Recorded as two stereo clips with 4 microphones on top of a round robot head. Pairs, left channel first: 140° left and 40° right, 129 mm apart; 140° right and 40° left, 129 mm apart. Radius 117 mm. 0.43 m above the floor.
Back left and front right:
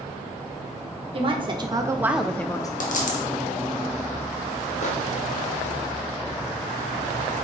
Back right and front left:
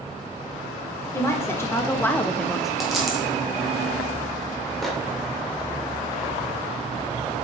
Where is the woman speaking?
75° right, 1.2 m; by 2.7 s 125° left, 0.8 m.